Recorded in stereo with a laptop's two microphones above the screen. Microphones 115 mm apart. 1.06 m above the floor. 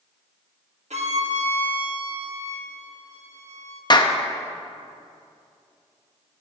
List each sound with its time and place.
0.9 s a violin: 70° right (ahead or behind), 1.2 m
3.9 s a clap: 40° left (ahead or behind), 0.6 m